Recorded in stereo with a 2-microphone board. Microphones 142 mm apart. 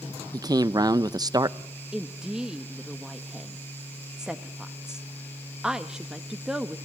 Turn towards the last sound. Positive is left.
turn(degrees=-5)  # may be behind; listen again after turning